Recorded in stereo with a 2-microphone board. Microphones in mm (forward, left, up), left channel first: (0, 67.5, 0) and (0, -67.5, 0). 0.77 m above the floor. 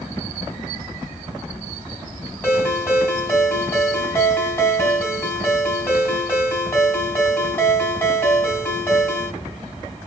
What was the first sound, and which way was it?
A ringtone, 15° left (ahead or behind).